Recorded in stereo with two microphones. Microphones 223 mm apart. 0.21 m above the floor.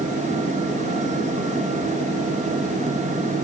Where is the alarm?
I don't hear an alarm.